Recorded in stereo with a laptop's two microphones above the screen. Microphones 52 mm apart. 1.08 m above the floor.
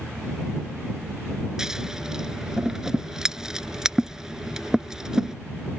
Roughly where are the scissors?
Centre.